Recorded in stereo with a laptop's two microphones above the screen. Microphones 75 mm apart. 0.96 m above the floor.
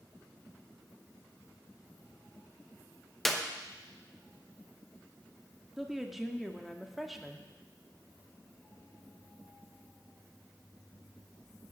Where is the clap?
5° left (ahead or behind), 0.8 m.